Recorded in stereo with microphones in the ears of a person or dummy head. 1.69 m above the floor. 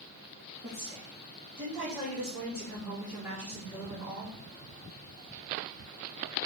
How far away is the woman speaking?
About 3 m.